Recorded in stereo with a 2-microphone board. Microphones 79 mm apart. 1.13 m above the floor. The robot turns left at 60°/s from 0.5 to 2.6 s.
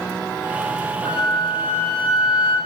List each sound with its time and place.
1.1 s a flute: 65° left, 3.5 m; by 2.5 s 25° right, 3.5 m